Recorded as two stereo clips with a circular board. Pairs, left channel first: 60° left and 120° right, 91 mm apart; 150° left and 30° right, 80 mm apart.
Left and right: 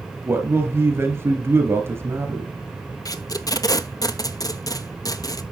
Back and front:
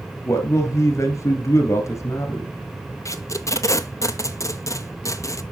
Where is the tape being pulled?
105° left, 0.6 m.